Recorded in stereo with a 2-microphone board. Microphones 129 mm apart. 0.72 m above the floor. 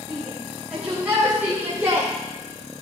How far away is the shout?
About 3.5 m.